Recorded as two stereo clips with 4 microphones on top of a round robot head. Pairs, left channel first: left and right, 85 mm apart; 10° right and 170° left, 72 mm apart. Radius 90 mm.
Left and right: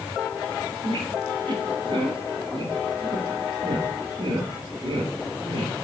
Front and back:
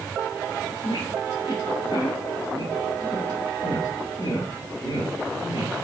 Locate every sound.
0.8 s a squeak: 45° right, 1.4 m